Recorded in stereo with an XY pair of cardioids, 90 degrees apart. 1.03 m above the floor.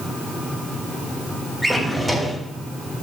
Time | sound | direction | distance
1.6 | a drawer | 10° right | 3.5 m